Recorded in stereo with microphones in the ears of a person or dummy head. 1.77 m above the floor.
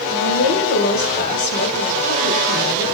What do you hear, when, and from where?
0.1 s a woman speaking: 40° left (ahead or behind), 7 m